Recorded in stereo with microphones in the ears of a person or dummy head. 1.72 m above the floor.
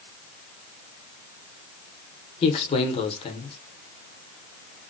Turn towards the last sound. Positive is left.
turn(degrees=30)  # may be behind; listen again after turning